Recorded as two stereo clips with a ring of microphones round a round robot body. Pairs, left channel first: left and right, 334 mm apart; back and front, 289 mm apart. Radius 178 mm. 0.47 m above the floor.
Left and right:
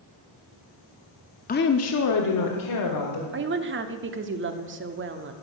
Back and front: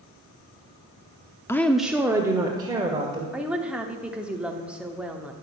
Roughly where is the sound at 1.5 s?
Left.